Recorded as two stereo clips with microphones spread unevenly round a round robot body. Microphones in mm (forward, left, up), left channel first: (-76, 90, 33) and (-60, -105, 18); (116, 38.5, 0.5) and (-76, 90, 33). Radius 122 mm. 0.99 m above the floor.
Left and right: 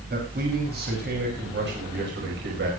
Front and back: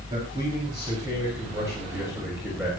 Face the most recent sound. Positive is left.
turn(degrees=-110)